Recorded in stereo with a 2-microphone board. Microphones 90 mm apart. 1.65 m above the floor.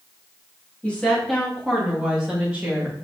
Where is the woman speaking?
15° left (ahead or behind), 3 m; by 2.9 s 15° right (ahead or behind), 3 m.